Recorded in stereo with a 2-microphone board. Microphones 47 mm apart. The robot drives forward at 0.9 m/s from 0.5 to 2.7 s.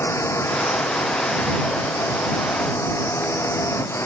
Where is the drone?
70° left (ahead or behind); by 4.1 s 65° left (ahead or behind).